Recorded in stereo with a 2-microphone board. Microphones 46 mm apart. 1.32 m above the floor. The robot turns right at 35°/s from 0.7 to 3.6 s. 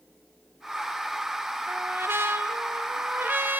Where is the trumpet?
115° right, 0.7 m; by 3.6 s 50° right, 0.7 m.